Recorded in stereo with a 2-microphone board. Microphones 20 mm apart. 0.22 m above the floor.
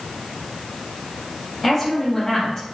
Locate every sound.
1.6 s a woman speaking: 15° left (ahead or behind), 3 m; by 2.6 s 40° left (ahead or behind), 3.5 m